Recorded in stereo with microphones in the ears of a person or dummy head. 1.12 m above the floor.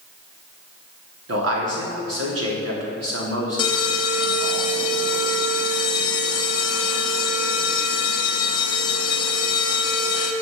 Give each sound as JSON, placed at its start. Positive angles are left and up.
{"t": 1.3, "sound": "a man speaking", "side_deg": -70, "distance_m": 3.0}
{"t": 3.6, "sound": "an alarm", "side_deg": 20, "distance_m": 1.0}